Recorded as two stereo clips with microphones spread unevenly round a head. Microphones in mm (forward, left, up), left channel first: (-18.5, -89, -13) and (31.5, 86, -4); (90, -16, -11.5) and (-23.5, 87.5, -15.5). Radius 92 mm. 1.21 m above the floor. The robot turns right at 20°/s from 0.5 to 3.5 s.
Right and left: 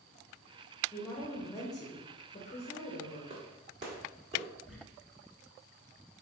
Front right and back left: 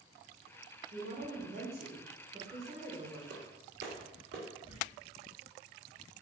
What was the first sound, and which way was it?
A woman speaking, 170° left.